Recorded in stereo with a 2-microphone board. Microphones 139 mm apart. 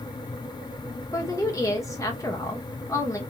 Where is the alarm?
No alarm in this recording.